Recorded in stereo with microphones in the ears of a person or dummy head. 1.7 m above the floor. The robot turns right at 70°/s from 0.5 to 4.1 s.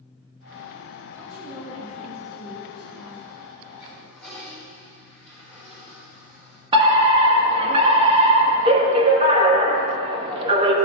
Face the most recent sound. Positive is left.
turn(degrees=-30)  # may be behind; listen again after turning